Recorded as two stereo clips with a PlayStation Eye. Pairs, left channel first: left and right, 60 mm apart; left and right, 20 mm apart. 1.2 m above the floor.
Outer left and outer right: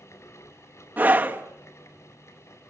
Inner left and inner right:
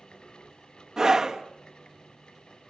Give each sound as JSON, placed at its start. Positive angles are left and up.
{"t": 1.0, "sound": "a scream", "side_deg": -30, "distance_m": 1.5}